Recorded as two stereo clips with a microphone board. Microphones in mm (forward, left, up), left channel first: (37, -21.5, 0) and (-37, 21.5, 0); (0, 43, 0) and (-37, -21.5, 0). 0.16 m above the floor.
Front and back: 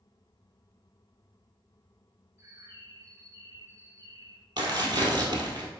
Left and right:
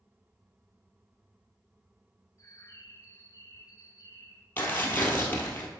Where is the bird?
100° left, 0.8 m.